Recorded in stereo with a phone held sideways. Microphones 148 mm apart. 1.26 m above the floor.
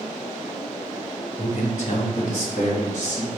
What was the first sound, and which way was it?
A man speaking, 50° left (ahead or behind).